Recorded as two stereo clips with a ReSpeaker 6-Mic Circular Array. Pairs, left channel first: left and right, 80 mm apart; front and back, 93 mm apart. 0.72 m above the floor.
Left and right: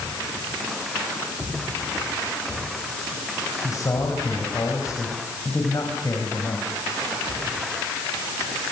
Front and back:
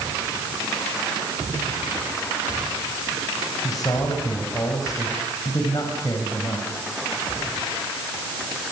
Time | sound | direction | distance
3.6 | a man speaking | 45° left | 4.5 m